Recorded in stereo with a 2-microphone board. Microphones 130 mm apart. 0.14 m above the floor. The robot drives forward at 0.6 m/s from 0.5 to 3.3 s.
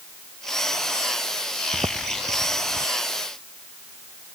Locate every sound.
1.7 s footsteps: 30° right (ahead or behind)